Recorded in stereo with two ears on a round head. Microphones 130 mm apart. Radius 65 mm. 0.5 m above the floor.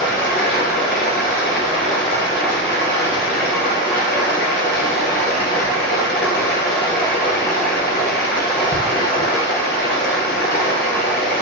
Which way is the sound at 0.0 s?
80° left.